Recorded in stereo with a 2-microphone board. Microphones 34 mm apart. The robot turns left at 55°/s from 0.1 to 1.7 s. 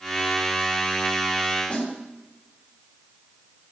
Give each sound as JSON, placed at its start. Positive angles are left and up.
{"t": 1.7, "sound": "a snare drum", "side_deg": 45, "distance_m": 2.5}